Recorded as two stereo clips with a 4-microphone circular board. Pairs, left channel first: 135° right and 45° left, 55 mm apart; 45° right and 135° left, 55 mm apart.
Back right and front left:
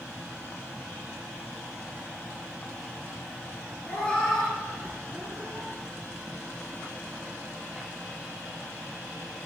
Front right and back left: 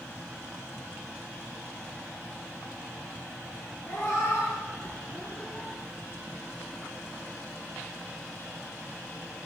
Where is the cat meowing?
75° right, 1.6 m; by 5.7 s 35° left, 1.6 m.